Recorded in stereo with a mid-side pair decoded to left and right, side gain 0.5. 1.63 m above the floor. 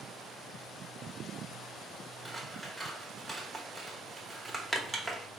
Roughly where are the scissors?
Ahead.